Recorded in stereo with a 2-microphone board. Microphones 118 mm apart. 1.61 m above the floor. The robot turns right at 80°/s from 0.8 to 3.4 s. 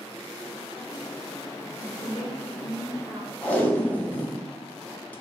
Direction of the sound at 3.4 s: 15° left (ahead or behind).